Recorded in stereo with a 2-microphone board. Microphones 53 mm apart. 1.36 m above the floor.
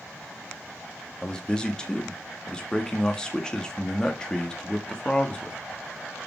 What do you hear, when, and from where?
1.2 s a man speaking: 15° left (ahead or behind), 2 m